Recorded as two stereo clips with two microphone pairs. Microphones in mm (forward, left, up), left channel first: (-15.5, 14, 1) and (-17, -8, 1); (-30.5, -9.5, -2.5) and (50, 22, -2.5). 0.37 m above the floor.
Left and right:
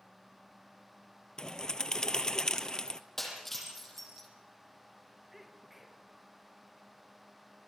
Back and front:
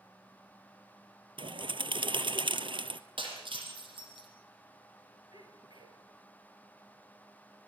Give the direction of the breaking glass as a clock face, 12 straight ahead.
12 o'clock.